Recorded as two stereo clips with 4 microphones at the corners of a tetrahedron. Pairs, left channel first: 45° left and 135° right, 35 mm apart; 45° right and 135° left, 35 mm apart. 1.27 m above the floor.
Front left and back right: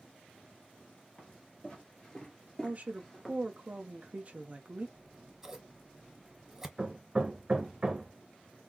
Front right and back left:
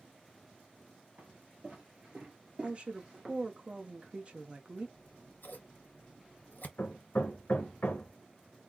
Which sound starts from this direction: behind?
A woman speaking, at 2.6 s.